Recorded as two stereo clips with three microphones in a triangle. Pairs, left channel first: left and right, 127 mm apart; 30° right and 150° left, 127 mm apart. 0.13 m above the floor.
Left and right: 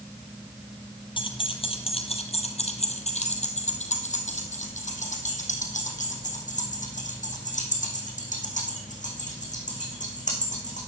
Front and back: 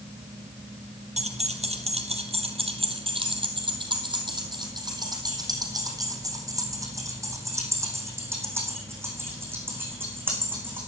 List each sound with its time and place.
1.2 s keys jangling: 135° left, 2.5 m; by 10.8 s 75° left, 6.5 m